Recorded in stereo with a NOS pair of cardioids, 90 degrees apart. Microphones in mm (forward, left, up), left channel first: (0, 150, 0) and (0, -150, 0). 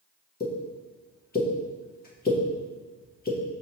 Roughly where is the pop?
Ahead left.